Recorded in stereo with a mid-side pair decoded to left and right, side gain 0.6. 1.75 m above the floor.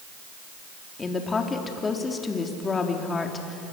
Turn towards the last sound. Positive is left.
turn(degrees=25)